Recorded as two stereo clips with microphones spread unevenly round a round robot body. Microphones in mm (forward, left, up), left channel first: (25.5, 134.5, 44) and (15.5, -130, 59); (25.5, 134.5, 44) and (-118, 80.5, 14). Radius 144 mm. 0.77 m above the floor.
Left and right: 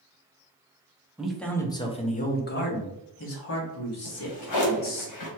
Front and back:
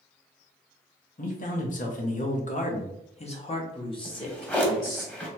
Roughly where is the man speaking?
Ahead.